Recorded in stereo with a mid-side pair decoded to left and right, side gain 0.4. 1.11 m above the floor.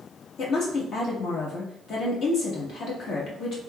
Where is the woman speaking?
70° left, 1.5 m.